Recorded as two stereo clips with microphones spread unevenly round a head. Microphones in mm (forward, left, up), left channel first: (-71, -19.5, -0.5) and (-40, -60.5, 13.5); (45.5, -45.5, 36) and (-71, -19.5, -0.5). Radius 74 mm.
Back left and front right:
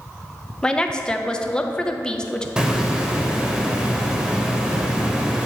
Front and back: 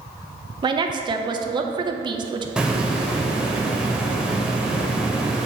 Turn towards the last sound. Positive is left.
turn(degrees=-85)